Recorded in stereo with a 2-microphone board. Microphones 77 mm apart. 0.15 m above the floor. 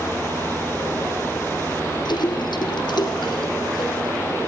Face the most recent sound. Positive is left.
turn(degrees=75)  # may be behind; listen again after turning